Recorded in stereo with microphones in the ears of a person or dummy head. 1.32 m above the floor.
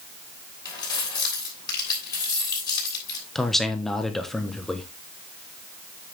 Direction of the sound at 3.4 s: Centre (ahead or behind).